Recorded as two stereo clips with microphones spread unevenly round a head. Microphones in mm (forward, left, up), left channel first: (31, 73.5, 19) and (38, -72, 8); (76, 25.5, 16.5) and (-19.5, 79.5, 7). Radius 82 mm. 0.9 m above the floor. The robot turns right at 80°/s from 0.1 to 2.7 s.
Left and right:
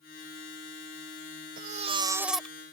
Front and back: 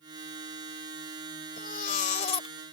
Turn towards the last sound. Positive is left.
turn(degrees=30)